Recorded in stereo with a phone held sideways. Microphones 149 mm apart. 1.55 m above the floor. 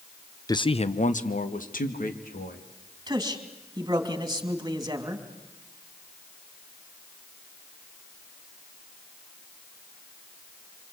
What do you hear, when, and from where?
0.5 s a man speaking: 25° left (ahead or behind), 0.7 m; by 2.6 s 75° left (ahead or behind), 3 m
3.1 s a man speaking: 25° right (ahead or behind), 3 m